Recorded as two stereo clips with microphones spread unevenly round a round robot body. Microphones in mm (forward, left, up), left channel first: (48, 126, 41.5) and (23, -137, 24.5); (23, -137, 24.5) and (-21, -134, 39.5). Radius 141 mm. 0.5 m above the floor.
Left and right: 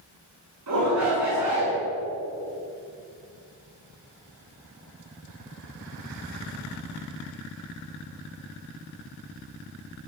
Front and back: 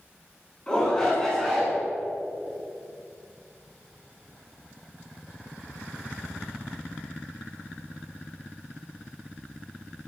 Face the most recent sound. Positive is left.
turn(degrees=-90)